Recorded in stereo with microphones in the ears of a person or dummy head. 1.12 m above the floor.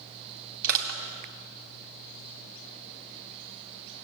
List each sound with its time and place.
0.6 s crushing: 50° right (ahead or behind), 1.9 m